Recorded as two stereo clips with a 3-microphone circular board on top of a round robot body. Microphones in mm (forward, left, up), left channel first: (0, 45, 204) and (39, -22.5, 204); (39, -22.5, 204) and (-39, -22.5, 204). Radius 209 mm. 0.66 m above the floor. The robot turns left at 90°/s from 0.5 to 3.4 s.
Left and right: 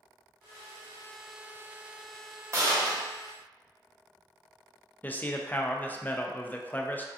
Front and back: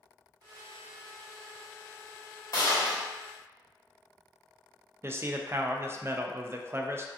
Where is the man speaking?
165° left, 0.5 m.